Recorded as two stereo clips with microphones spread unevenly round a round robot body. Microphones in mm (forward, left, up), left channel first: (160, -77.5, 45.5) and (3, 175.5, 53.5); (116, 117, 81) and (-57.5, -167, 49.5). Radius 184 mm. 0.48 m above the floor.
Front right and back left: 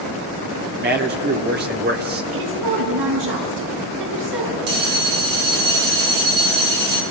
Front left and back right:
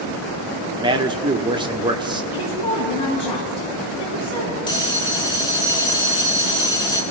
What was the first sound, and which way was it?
A man speaking, 170° left.